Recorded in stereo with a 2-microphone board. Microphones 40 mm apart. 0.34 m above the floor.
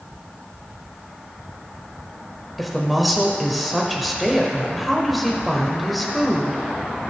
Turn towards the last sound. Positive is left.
turn(degrees=0)  # may be behind; listen again after turning